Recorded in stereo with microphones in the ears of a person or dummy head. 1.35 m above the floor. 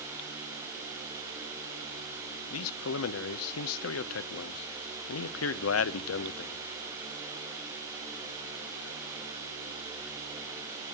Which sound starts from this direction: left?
A man speaking, at 2.5 s.